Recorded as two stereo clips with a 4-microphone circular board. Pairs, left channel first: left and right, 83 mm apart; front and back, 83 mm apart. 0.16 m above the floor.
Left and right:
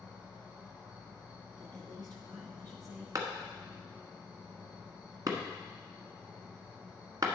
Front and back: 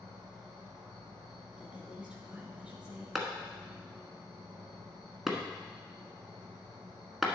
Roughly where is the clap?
Right.